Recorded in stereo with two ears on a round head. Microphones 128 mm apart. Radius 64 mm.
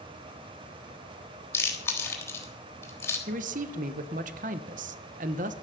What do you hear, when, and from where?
1.5 s chewing: 20° left (ahead or behind), 3.5 m
3.3 s a man speaking: 60° right (ahead or behind), 1.1 m